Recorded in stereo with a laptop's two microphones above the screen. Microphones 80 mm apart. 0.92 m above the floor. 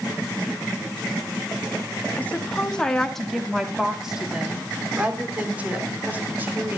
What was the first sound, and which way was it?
A woman speaking, 20° left (ahead or behind).